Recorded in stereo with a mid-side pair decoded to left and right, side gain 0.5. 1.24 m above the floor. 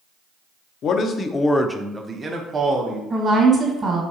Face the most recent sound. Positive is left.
turn(degrees=-35)